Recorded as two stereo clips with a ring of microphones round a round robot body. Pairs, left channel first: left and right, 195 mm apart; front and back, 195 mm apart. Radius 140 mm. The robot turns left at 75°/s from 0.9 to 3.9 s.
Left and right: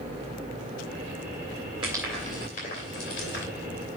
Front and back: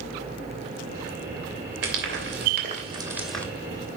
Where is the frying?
160° right, 2.5 m; by 3.5 s 80° left, 2.5 m.